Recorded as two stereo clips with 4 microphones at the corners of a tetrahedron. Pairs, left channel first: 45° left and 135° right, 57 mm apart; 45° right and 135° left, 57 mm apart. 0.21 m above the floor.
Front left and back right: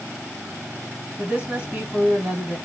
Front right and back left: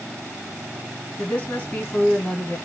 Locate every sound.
1.2 s a woman speaking: 85° right, 2.0 m